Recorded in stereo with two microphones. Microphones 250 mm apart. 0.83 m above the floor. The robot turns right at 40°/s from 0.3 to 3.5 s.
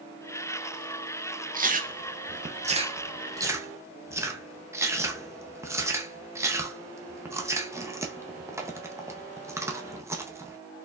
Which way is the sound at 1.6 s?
35° right (ahead or behind).